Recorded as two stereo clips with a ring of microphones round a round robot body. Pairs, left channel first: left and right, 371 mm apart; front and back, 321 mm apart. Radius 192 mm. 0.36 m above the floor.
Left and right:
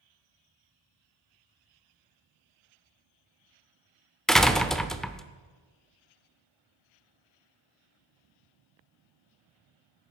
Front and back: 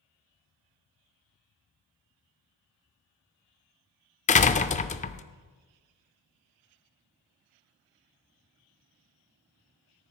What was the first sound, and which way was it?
A door slam, 5° left.